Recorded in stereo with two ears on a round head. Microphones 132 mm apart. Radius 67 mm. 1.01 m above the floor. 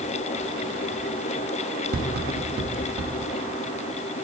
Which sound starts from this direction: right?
Tapping, at 1.9 s.